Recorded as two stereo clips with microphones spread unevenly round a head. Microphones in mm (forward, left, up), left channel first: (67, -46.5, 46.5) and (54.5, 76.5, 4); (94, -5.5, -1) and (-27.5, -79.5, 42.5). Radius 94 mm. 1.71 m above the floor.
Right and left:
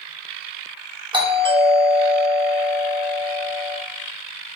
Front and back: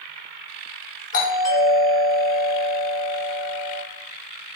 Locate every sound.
1.1 s a doorbell: 55° left, 2.5 m